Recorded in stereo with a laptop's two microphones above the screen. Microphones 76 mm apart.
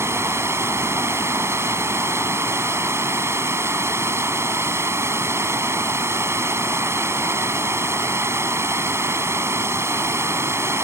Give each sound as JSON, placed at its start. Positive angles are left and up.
{"t": 0.0, "sound": "running water", "side_deg": -35}